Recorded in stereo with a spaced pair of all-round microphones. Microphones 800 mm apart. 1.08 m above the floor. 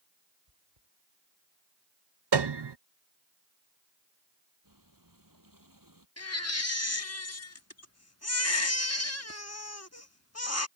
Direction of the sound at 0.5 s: 35° right (ahead or behind).